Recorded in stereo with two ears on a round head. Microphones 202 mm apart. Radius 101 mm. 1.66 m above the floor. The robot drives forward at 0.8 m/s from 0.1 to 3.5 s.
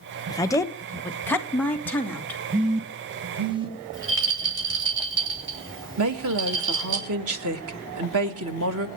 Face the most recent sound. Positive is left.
turn(degrees=-70)  # may be behind; listen again after turning